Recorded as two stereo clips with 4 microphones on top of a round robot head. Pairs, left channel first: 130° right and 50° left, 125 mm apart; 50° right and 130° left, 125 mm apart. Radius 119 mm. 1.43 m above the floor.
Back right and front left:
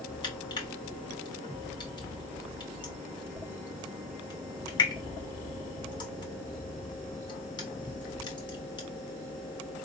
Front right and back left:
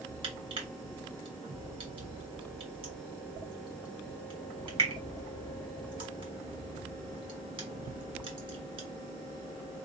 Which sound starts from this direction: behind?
Crushing, at 0.2 s.